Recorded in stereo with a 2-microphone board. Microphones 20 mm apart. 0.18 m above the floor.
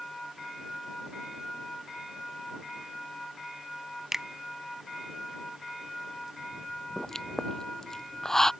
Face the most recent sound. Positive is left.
turn(degrees=20)  # may be behind; listen again after turning